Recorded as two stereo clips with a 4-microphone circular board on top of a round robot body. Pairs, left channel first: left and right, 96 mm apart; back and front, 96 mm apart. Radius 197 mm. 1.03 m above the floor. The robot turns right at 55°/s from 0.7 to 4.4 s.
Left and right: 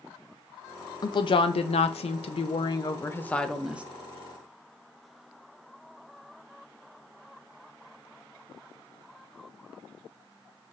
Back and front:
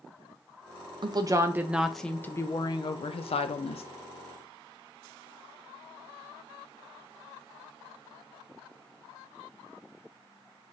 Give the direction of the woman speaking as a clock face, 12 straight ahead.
11 o'clock.